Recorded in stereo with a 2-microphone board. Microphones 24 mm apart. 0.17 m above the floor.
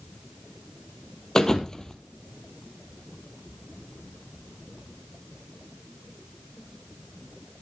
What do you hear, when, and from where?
1.4 s a thud: 25° left (ahead or behind), 1.3 m